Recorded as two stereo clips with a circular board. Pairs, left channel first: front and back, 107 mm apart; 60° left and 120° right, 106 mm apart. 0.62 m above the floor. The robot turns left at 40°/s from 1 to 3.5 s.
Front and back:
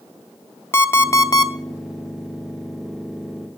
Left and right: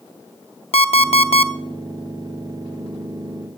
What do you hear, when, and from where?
0.7 s an alarm clock: 65° left, 0.6 m; by 1.5 s 45° left, 0.6 m